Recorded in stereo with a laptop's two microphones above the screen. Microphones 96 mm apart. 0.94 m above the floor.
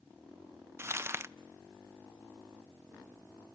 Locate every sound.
0.8 s crumpling: 30° right (ahead or behind), 0.6 m